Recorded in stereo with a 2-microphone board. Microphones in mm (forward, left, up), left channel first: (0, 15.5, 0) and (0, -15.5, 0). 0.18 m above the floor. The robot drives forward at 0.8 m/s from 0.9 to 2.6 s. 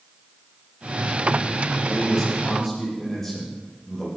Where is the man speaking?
10° left (ahead or behind), 7.5 m.